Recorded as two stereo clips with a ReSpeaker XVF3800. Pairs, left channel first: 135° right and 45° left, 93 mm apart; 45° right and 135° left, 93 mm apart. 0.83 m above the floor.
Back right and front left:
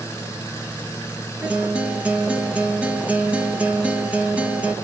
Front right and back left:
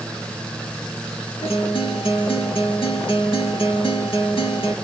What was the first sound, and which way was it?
A guitar, 30° right.